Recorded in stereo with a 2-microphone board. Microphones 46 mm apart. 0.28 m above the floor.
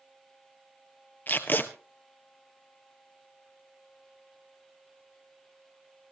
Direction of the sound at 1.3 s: 40° left (ahead or behind).